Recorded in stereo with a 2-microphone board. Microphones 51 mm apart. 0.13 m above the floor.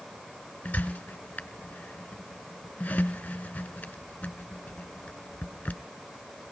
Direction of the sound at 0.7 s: 30° left (ahead or behind).